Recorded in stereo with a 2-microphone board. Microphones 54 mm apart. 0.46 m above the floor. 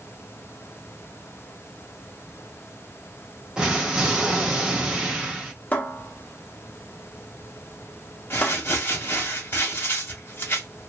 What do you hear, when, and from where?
3.6 s an explosion: 10° right (ahead or behind), 1.3 m
5.7 s a cupboard door: 35° left (ahead or behind), 0.7 m
8.3 s crumpling: 45° left (ahead or behind), 1.2 m